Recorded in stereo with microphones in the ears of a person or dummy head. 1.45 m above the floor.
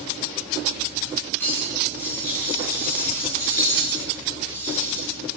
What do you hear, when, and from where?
1.4 s cutlery clinking: 10° left (ahead or behind), 8 m